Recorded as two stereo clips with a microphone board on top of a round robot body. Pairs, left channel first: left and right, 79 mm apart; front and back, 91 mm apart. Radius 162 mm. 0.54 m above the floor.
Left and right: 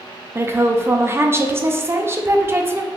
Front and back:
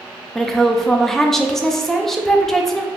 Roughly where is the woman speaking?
Right.